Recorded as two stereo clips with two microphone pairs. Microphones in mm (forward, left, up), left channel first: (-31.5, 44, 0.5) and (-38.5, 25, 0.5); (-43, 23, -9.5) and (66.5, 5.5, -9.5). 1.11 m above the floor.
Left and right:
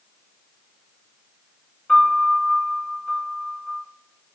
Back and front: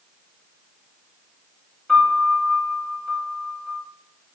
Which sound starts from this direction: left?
A piano, at 1.9 s.